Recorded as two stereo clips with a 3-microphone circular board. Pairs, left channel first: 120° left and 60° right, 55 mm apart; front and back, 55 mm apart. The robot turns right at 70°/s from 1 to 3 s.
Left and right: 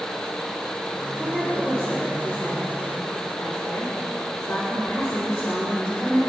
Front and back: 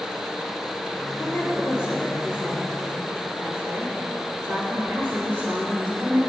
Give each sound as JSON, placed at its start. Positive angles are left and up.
{"t": 1.2, "sound": "a woman speaking", "azimuth_deg": 50, "distance_m": 4.5}